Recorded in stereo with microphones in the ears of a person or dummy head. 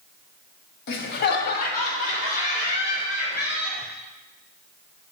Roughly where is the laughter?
Left.